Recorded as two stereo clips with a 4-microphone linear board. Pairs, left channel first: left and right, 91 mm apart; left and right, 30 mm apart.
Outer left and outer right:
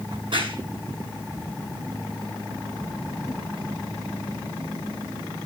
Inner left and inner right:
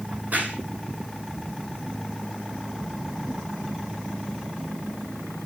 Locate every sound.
0.1 s a crack: 70° right (ahead or behind), 10 m